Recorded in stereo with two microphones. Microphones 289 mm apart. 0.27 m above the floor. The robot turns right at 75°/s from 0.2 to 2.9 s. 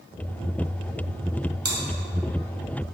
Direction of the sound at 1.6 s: 50° right (ahead or behind).